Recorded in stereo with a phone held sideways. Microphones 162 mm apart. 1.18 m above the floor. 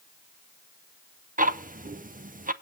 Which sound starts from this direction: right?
Ticking, at 1.4 s.